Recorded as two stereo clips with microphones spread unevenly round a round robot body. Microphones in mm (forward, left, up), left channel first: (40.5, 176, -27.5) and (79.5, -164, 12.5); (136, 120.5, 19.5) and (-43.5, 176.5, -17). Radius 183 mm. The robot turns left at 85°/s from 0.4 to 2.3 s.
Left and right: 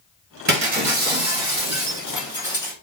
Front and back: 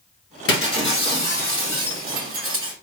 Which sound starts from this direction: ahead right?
Breaking glass, at 0.5 s.